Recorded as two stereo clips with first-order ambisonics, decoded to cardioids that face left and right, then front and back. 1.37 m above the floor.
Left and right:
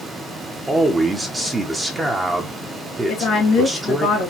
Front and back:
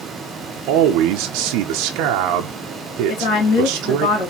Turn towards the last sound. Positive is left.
turn(degrees=40)